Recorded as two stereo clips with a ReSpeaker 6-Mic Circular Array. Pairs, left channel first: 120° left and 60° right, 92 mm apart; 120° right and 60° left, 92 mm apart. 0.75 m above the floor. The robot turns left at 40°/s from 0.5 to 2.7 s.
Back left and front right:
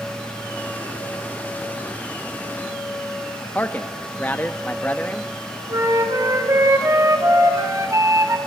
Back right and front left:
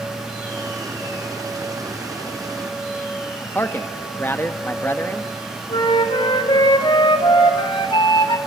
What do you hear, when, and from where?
3.5 s a man speaking: 175° right, 0.7 m
5.7 s a flute: 110° right, 1.7 m